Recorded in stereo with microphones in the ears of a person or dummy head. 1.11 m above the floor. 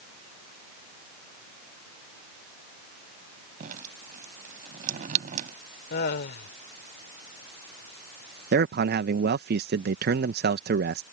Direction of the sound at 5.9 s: 60° left (ahead or behind).